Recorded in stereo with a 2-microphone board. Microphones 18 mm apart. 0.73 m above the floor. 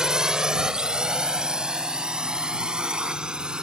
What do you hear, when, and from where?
0.0 s a drone: 40° right (ahead or behind); by 3.6 s 55° right (ahead or behind)